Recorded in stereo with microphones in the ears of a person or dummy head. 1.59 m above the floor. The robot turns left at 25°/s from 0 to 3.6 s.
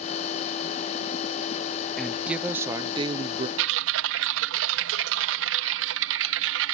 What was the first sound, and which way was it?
A woman speaking, 5° left.